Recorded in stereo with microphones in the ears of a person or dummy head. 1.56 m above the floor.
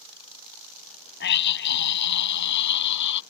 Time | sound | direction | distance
1.2 | a scream | 65° left (ahead or behind) | ?